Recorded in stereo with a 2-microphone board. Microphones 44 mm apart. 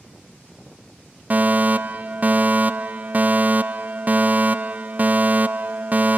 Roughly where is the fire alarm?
Right.